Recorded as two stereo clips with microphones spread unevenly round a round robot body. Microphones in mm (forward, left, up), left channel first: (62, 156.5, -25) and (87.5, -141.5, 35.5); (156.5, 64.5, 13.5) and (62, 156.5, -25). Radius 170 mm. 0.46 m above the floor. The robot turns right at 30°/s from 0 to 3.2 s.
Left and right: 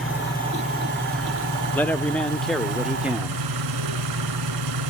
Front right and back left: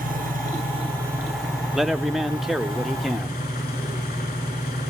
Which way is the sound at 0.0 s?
175° right.